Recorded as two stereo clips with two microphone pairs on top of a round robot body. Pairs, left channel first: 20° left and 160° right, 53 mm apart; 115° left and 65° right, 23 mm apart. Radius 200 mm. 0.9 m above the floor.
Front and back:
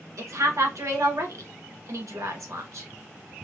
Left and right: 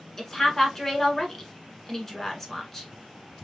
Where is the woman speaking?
165° right, 1.5 m.